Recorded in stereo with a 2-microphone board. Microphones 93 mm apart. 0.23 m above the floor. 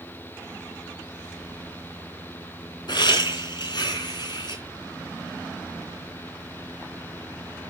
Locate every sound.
2.9 s laughter: 55° left (ahead or behind), 3 m